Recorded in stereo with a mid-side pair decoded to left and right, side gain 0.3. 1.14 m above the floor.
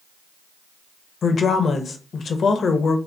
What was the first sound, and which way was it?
A woman speaking, 65° left.